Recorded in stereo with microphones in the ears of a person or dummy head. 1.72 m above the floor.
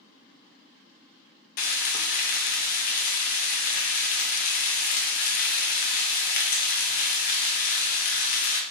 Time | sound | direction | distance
1.6 | frying | 55° left (ahead or behind) | 0.6 m